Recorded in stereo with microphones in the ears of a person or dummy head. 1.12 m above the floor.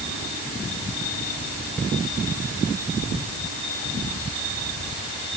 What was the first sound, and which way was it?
Only background noise.